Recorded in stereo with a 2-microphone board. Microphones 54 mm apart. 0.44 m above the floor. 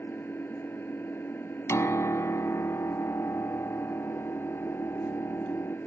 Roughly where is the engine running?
Left.